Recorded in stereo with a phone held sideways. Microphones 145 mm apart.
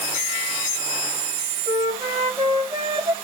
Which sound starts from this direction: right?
A flute, at 1.7 s.